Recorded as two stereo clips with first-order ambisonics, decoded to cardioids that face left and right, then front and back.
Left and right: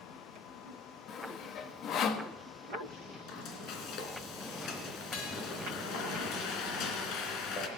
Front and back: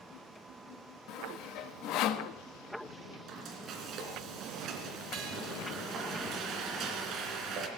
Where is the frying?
130° left, 2.5 m.